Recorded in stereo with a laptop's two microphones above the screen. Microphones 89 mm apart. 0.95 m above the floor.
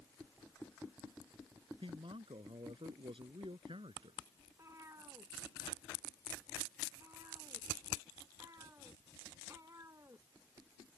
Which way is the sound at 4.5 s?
35° right (ahead or behind).